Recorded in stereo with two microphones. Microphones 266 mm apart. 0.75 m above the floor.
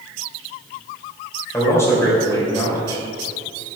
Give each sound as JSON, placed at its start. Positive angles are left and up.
{"t": 1.5, "sound": "a man speaking", "side_deg": 10, "distance_m": 3.5}